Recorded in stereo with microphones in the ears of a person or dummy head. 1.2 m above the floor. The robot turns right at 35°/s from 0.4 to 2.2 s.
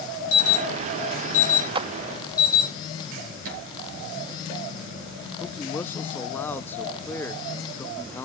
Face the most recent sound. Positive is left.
turn(degrees=10)  # may be behind; listen again after turning